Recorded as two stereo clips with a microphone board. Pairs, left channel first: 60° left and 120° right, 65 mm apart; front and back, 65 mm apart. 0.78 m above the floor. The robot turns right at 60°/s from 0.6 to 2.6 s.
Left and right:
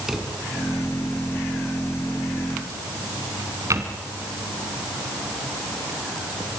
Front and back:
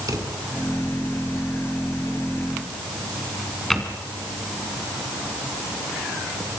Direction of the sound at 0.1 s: 155° left.